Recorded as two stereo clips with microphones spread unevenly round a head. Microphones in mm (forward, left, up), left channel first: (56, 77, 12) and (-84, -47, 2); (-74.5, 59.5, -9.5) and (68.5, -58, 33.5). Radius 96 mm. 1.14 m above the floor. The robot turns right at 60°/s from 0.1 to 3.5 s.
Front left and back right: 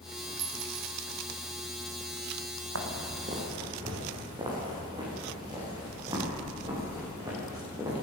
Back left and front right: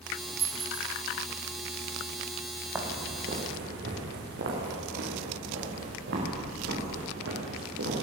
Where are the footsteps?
115° right, 4 m; by 8.0 s 65° right, 11 m.